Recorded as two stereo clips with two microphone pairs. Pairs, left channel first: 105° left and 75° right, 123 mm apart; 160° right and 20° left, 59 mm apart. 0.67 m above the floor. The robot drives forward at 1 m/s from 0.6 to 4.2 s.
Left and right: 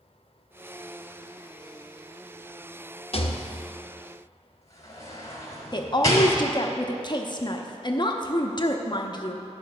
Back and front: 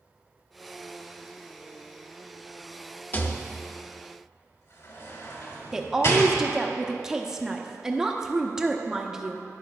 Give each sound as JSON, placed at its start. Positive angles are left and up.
{"t": 3.1, "sound": "a rattle", "azimuth_deg": 140, "distance_m": 0.6}
{"t": 5.7, "sound": "a woman speaking", "azimuth_deg": 95, "distance_m": 0.8}